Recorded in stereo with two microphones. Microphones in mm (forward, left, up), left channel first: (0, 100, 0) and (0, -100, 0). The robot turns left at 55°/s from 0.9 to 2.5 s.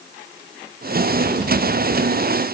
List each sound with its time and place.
Only background noise.